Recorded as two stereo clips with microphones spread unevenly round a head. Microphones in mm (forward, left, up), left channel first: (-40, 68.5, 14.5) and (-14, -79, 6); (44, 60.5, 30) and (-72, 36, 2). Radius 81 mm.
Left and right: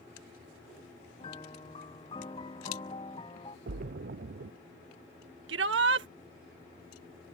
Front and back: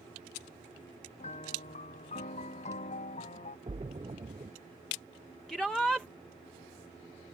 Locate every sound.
1.2 s a piano: 35° left
3.7 s a splash: 110° right
5.5 s a shout: 75° right